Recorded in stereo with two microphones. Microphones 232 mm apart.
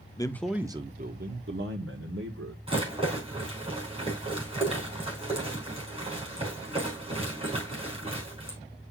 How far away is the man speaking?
About 0.7 m.